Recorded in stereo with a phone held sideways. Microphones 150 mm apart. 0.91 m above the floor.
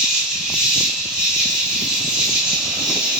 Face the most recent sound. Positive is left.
turn(degrees=-5)  # may be behind; listen again after turning